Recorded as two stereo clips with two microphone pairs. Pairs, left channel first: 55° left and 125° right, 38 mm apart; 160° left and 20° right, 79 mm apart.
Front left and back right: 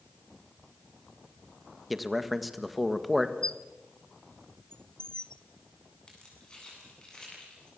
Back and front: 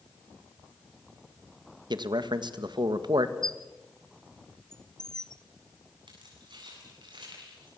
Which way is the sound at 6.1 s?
10° right.